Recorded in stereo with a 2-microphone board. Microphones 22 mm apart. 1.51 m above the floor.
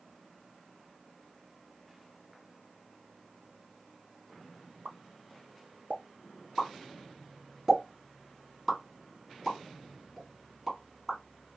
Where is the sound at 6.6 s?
5° right (ahead or behind), 1.6 m.